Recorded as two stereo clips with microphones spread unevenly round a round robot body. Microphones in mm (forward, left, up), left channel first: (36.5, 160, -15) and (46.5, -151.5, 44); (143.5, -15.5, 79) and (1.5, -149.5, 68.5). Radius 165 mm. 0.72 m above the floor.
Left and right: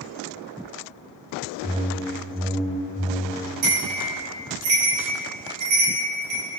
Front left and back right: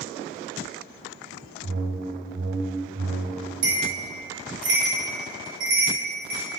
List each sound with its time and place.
1.6 s a whoosh: 155° right, 0.8 m
3.6 s a bell: 125° right, 4 m